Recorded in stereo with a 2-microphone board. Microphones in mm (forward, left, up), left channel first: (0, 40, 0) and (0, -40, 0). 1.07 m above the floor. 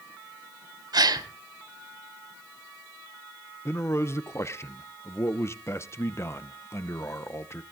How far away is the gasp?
About 1.6 m.